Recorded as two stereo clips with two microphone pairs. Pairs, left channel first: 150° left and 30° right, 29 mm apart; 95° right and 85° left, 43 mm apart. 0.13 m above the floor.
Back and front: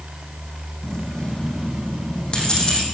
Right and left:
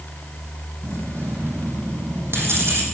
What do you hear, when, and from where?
0.8 s keys jangling: 90° left, 4.5 m